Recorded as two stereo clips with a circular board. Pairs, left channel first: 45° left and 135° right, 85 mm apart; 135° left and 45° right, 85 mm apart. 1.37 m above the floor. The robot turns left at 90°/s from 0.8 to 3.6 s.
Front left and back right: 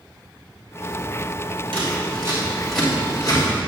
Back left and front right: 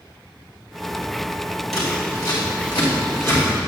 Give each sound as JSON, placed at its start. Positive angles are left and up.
{"t": 1.7, "sound": "scissors", "azimuth_deg": -135, "distance_m": 2.5}